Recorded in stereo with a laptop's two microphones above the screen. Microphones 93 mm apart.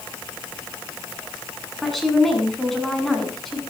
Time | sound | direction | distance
1.8 | a woman speaking | centre (ahead or behind) | 7.5 m